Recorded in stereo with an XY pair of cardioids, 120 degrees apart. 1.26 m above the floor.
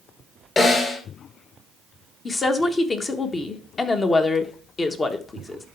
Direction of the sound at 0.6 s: 25° left.